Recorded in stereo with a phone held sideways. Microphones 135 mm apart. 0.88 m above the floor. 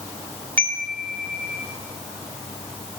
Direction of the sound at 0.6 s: 10° left (ahead or behind).